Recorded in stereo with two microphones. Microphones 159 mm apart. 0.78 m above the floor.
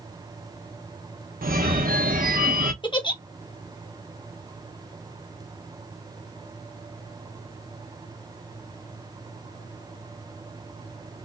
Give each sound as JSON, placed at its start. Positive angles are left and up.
{"t": 1.4, "sound": "a phone ringing", "side_deg": -65, "distance_m": 1.0}
{"t": 2.8, "sound": "a giggle", "side_deg": 30, "distance_m": 1.1}